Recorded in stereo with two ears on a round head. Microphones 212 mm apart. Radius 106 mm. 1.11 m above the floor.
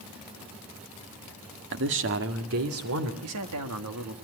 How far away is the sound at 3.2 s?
About 2.5 m.